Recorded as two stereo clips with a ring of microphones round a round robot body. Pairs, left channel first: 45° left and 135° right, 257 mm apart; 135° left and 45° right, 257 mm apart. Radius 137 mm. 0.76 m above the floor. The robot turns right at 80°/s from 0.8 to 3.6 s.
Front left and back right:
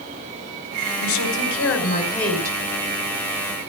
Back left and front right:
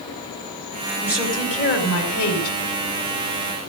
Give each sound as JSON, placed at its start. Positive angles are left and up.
{"t": 1.0, "sound": "a woman speaking", "azimuth_deg": 30, "distance_m": 5.0}